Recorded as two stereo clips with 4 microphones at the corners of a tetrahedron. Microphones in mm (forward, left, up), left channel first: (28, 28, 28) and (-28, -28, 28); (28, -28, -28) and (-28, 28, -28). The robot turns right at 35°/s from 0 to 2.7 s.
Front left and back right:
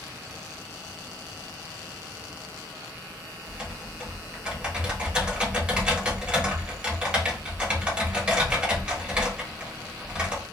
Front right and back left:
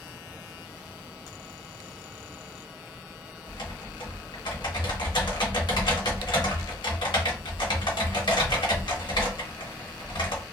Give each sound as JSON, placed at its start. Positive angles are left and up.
{"t": 3.5, "sound": "typing on a keyboard", "azimuth_deg": -60, "distance_m": 1.1}